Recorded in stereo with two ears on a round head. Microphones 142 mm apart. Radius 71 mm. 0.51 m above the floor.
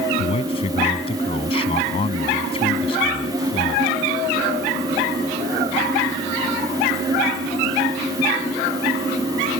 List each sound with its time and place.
0.2 s a man speaking: 35° left (ahead or behind)